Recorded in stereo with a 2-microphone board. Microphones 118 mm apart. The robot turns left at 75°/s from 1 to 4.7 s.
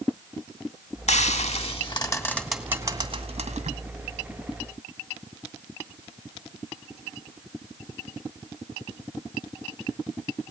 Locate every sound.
1.1 s frying: 70° left (ahead or behind), 2 m; by 3.7 s 75° right (ahead or behind), 2 m